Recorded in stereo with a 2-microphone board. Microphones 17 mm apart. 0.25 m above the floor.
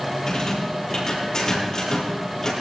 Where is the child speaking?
I don't hear a child speaking.